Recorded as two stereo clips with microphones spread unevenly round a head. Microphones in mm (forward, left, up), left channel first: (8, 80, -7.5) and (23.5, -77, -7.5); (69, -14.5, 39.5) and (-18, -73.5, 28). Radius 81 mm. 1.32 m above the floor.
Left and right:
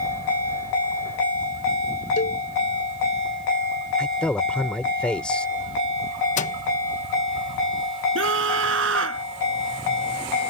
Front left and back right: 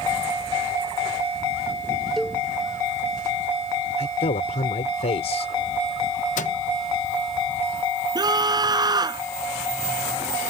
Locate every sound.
2.2 s a cowbell: 120° left
4.0 s a man speaking: 15° left
6.4 s a microwave: 55° left
8.2 s a scream: 95° right